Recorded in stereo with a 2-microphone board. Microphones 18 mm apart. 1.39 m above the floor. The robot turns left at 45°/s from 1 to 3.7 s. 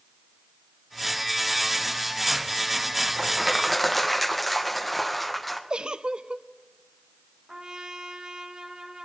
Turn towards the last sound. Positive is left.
turn(degrees=-45)  # may be behind; listen again after turning